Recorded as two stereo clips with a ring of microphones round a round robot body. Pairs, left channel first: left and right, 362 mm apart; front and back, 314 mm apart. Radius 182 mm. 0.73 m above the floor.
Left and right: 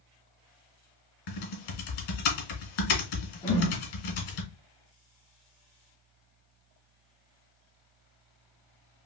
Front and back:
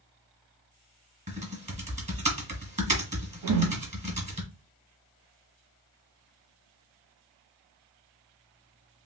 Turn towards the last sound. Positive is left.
turn(degrees=165)